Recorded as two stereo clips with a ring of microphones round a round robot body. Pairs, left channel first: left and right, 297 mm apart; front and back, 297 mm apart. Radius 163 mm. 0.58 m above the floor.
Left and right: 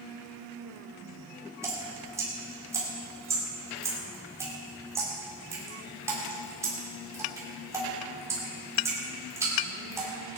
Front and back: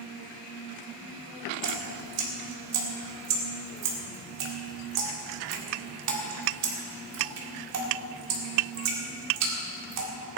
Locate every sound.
1.6 s dripping: 170° right, 2 m